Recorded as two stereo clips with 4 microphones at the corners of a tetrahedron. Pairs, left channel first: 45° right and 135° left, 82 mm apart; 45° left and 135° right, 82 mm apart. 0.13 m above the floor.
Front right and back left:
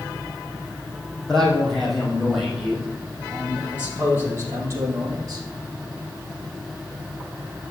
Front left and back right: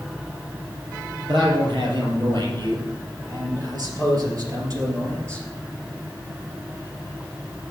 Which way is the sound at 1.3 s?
130° right.